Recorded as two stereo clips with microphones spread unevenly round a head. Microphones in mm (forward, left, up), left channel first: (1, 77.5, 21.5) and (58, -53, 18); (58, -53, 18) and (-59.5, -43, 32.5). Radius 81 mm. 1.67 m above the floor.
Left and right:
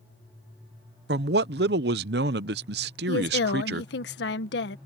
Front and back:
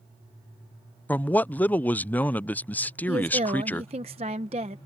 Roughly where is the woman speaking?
Behind left.